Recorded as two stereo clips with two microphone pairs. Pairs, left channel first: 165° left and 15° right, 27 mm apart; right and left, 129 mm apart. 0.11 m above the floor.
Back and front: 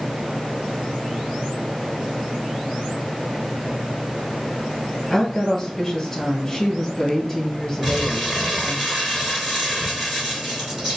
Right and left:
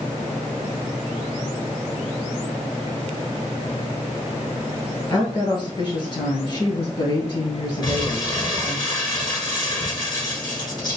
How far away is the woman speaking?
About 1.7 m.